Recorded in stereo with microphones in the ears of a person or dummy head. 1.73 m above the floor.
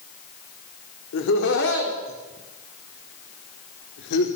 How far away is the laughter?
About 4 m.